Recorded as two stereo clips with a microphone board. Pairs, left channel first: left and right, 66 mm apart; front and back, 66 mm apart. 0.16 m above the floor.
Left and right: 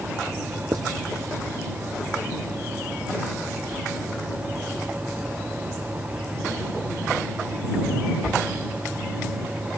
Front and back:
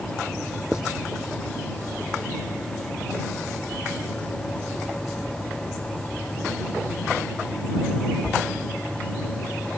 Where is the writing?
100° right.